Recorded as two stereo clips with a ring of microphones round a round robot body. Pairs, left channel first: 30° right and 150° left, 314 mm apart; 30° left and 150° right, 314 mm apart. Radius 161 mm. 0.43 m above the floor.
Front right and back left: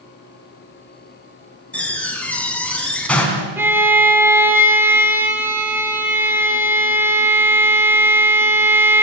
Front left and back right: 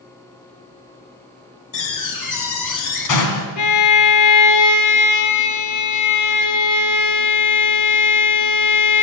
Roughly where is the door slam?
Ahead left.